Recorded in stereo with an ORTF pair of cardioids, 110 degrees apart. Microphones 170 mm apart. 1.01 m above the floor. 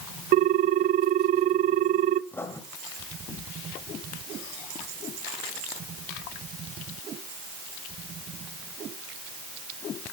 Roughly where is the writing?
Ahead.